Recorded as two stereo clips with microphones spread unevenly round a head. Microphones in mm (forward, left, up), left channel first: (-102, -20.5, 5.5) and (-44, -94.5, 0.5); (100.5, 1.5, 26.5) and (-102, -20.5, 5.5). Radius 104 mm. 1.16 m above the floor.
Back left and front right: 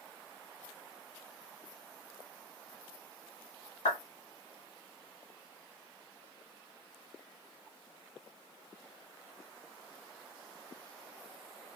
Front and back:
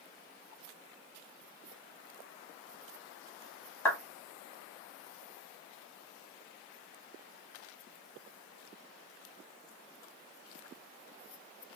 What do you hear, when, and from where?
3.9 s a clap: 85° left, 2 m